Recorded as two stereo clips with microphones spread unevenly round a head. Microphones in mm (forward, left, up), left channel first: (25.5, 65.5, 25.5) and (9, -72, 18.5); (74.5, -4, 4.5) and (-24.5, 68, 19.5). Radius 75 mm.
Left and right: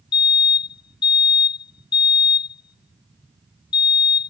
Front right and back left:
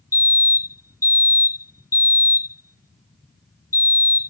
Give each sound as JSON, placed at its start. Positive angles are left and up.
{"t": 0.1, "sound": "a fire alarm", "azimuth_deg": 25}